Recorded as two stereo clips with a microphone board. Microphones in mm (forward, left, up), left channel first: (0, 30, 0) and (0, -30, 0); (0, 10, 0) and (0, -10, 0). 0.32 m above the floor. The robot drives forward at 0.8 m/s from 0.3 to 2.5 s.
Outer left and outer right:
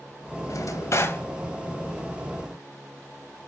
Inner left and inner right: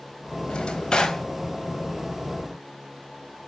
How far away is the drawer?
About 0.5 m.